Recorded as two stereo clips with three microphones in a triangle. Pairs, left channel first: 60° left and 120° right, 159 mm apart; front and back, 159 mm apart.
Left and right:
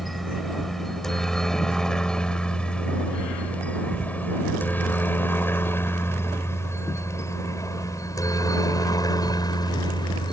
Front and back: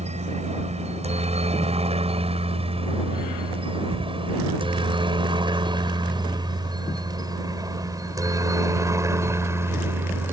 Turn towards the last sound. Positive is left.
turn(degrees=110)